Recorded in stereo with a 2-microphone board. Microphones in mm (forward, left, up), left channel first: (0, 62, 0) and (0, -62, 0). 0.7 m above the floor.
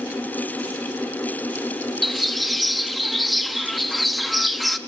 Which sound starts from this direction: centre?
A bird, at 2.0 s.